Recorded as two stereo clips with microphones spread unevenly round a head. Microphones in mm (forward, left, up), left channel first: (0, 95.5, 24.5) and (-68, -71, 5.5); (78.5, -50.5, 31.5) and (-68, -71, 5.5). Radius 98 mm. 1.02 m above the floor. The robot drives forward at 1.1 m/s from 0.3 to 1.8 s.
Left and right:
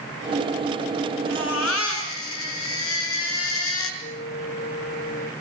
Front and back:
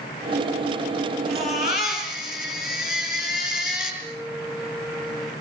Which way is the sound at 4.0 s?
90° left.